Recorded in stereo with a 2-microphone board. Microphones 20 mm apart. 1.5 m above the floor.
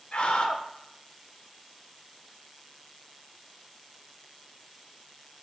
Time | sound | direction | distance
0.1 | a scream | 55° left (ahead or behind) | 0.7 m